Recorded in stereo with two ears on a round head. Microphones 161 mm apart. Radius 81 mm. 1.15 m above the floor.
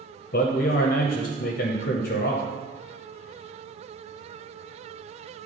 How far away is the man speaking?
About 0.7 m.